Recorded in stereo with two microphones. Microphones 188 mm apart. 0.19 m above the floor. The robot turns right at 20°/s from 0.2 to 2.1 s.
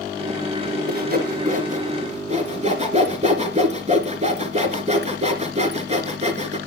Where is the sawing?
55° right (ahead or behind), 2 m; by 6.6 s 35° right (ahead or behind), 2 m.